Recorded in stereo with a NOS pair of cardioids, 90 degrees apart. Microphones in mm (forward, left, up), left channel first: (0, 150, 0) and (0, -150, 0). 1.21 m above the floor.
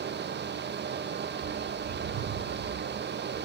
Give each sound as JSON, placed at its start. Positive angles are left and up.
{"t": 0.0, "sound": "a fan", "azimuth_deg": -35, "distance_m": 0.8}
{"t": 1.3, "sound": "a bird", "azimuth_deg": -65, "distance_m": 5.0}